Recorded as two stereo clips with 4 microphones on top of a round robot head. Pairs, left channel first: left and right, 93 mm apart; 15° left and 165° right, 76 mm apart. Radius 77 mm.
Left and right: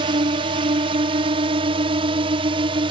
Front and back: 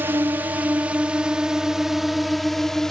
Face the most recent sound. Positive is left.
turn(degrees=-70)